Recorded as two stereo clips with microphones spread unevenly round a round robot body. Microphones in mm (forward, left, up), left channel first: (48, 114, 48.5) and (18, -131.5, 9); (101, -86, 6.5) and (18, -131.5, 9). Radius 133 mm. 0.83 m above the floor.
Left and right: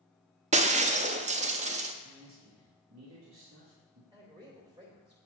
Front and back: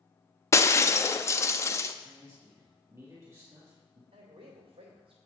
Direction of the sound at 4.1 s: 170° right.